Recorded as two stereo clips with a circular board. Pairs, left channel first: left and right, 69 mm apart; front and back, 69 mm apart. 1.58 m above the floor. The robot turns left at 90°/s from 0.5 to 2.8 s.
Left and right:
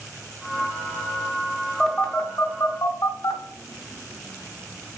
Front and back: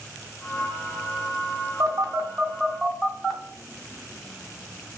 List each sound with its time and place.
1.8 s a phone buzzing: straight behind, 0.5 m; by 3.4 s 90° left, 0.5 m